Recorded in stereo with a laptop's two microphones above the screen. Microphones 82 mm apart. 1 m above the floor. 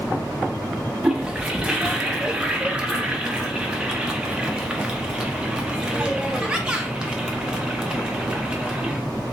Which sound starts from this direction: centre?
A toilet flushing, at 1.0 s.